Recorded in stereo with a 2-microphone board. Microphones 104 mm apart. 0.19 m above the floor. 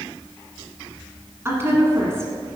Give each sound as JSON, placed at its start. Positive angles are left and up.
{"t": 1.4, "sound": "a woman speaking", "side_deg": -25, "distance_m": 1.9}